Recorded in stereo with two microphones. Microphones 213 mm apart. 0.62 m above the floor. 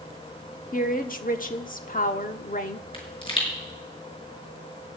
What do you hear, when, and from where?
0.7 s a woman speaking: 40° left (ahead or behind), 1.1 m
2.9 s a pop: 25° left (ahead or behind), 5 m